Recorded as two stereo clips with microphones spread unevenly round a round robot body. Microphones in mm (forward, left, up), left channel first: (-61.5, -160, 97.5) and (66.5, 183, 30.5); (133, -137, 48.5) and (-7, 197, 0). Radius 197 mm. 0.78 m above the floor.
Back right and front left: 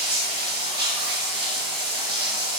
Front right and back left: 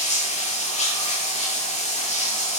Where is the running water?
5° left, 6.5 m.